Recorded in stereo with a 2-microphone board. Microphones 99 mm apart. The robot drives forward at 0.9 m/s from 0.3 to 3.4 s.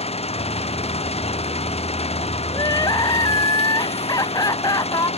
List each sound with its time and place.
0.0 s an engine running: 80° left; by 5.2 s 85° left
2.5 s crying: 40° left (ahead or behind)